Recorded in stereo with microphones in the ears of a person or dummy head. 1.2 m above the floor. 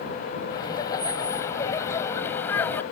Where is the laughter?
20° left (ahead or behind); by 2.8 s 10° left (ahead or behind).